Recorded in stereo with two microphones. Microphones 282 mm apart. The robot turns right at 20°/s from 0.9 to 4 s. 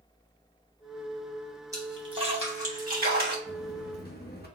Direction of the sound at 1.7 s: 10° right (ahead or behind).